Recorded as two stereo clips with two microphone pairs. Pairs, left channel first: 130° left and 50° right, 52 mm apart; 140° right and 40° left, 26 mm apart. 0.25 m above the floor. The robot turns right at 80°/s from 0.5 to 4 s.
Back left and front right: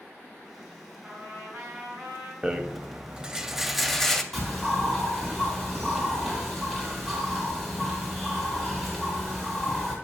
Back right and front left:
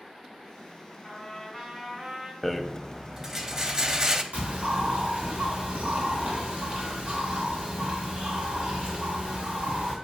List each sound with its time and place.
1.0 s a trumpet: 125° right, 2.5 m; by 2.3 s 20° right, 2.5 m
2.4 s a rattle: 70° right, 0.5 m; by 4.2 s 55° left, 0.5 m
4.3 s a bird: 50° left, 2.5 m